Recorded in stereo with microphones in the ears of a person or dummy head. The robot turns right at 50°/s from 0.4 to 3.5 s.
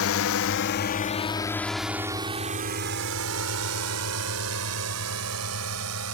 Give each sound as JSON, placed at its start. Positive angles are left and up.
{"t": 0.0, "sound": "a drone", "side_deg": 65}